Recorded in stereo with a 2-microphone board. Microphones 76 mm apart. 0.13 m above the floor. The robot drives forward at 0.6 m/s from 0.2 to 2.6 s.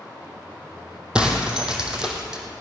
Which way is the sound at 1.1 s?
10° right (ahead or behind).